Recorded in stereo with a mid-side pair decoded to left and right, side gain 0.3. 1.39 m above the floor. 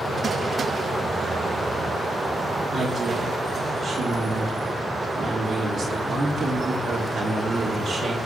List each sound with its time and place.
2.7 s a woman speaking: 65° right, 3 m